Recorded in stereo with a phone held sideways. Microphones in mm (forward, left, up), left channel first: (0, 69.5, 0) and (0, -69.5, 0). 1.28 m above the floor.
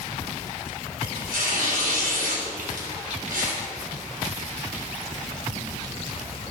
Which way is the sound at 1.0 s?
85° right.